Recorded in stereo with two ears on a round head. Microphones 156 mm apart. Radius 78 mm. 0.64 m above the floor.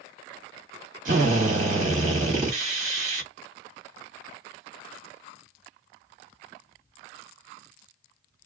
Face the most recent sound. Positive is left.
turn(degrees=-45)  # may be behind; listen again after turning